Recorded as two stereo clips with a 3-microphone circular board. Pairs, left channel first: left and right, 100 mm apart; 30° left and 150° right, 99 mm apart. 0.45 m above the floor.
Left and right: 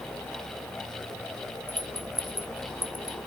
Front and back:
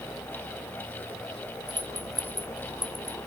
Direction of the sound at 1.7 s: 160° right.